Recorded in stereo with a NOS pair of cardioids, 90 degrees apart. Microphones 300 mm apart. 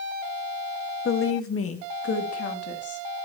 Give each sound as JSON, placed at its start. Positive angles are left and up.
{"t": 1.1, "sound": "a woman speaking", "azimuth_deg": 45, "distance_m": 1.3}